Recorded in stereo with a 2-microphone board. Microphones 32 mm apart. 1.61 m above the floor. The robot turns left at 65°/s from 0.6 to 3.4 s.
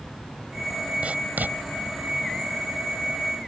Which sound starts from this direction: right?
Writing, at 1.0 s.